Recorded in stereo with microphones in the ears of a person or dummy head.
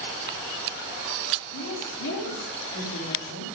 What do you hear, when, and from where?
1.5 s a woman speaking: 60° left (ahead or behind), 3 m